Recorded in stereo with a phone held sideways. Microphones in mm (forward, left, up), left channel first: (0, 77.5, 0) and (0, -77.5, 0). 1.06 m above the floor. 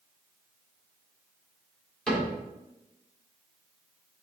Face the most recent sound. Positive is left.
turn(degrees=5)  # may be behind; listen again after turning